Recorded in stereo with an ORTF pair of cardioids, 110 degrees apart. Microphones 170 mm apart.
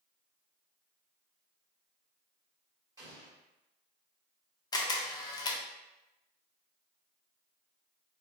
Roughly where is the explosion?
Ahead.